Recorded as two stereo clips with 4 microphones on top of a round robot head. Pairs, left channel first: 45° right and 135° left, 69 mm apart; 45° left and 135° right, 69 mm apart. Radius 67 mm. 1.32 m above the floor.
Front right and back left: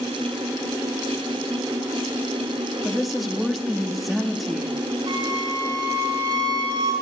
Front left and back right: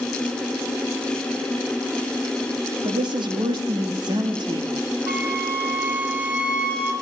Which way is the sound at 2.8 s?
135° right.